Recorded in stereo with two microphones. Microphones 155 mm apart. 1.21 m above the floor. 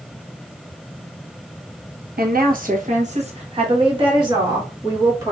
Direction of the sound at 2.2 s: 80° right.